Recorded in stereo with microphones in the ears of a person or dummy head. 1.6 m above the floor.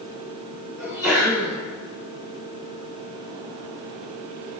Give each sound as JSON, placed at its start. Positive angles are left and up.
{"t": 0.8, "sound": "a sneeze", "side_deg": -5, "distance_m": 1.7}